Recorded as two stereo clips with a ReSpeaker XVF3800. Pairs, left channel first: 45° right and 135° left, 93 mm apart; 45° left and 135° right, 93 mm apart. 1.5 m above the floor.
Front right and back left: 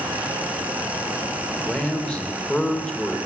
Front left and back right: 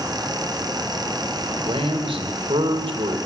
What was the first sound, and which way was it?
A man speaking, 125° right.